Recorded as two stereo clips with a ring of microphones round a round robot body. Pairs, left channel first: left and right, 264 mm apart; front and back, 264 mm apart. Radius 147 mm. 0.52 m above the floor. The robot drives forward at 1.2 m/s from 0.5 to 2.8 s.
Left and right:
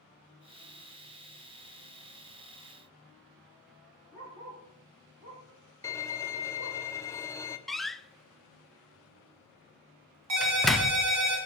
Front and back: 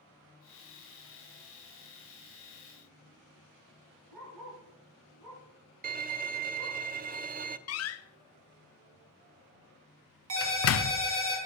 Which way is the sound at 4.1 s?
165° right.